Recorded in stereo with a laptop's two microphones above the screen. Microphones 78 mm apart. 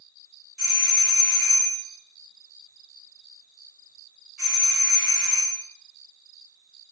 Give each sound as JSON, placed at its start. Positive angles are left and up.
{"t": 0.6, "sound": "a doorbell", "side_deg": 5, "distance_m": 2.0}